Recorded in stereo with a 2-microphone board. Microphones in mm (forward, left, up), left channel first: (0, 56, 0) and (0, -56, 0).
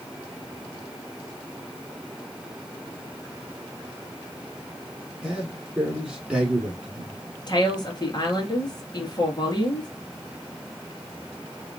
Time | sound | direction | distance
5.2 | a man speaking | 5° right (ahead or behind) | 3 m
7.5 | a woman speaking | 40° left (ahead or behind) | 2.0 m